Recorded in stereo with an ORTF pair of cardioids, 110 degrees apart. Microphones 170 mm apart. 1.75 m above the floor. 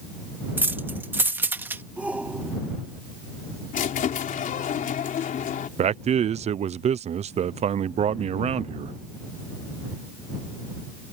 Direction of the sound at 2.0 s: 10° right.